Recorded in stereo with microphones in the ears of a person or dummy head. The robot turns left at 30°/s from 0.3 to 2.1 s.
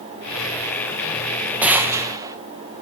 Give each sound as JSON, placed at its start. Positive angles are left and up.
{"t": 1.6, "sound": "a gunshot", "side_deg": -15, "distance_m": 0.7}